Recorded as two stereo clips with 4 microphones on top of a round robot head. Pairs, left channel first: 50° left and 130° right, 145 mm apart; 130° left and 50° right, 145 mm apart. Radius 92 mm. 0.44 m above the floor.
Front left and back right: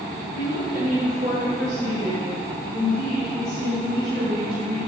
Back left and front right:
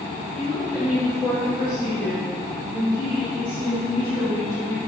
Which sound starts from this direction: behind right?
A woman speaking, at 0.3 s.